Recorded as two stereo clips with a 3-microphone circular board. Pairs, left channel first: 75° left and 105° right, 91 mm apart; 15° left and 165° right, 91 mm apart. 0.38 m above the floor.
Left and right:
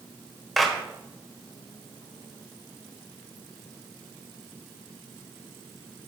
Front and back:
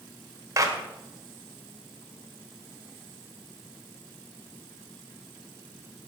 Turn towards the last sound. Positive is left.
turn(degrees=165)